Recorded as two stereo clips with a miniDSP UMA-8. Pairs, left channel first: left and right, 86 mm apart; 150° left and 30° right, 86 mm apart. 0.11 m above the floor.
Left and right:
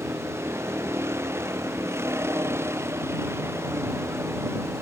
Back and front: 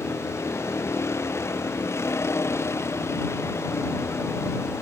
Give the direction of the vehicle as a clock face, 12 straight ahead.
5 o'clock.